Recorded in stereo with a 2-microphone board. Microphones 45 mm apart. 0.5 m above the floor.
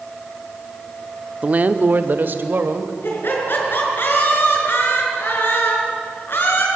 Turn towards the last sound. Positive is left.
turn(degrees=50)  # may be behind; listen again after turning